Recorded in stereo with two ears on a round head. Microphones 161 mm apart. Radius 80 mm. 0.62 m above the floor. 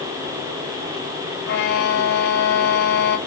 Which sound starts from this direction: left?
A violin, at 1.4 s.